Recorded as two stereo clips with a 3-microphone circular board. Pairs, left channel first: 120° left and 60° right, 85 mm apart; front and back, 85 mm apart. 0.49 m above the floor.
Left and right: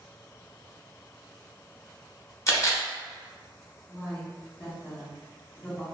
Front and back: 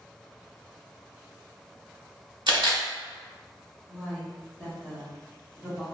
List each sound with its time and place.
2.5 s a camera shutter: 170° left, 1.0 m
3.9 s a woman speaking: 130° left, 1.2 m